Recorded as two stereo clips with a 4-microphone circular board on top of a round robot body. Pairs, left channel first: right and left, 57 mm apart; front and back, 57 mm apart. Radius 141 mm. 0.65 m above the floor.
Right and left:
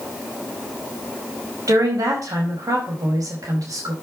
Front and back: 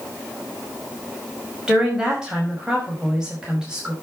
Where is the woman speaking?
105° left, 5 m.